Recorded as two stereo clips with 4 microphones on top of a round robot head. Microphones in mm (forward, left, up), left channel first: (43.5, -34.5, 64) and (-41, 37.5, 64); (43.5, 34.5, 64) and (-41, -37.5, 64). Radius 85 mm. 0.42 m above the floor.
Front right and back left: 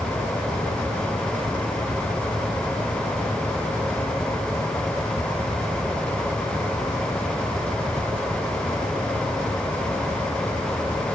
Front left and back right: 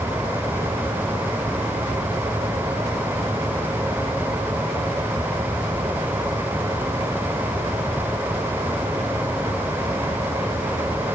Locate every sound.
Only background noise.